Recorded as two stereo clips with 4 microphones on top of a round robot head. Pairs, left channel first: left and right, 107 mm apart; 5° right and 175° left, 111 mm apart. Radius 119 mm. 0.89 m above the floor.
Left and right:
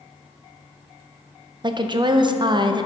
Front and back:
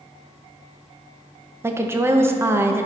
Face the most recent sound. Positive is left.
turn(degrees=-120)